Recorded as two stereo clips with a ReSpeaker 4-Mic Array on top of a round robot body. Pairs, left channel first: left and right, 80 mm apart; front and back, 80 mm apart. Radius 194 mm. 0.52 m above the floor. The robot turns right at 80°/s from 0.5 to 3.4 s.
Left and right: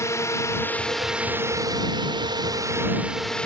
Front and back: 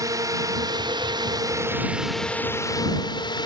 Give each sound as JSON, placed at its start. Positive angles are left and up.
{"t": 0.0, "sound": "a drone", "azimuth_deg": 140}